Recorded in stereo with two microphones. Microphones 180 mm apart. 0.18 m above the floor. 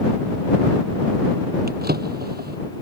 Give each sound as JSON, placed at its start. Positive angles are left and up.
{"t": 1.7, "sound": "a drawer", "side_deg": -60}